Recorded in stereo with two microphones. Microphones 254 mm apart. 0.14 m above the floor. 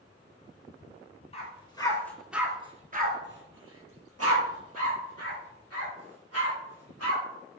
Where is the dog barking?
25° left (ahead or behind), 1.1 m; by 7.2 s 75° right (ahead or behind), 3 m.